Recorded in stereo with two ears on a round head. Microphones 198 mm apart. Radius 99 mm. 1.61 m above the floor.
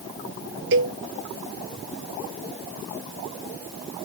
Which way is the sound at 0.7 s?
60° right (ahead or behind).